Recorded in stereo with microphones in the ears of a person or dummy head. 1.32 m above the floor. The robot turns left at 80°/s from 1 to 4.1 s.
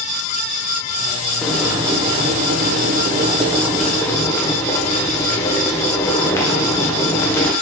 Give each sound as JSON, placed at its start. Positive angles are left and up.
{"t": 1.4, "sound": "boiling", "azimuth_deg": 15, "distance_m": 0.6}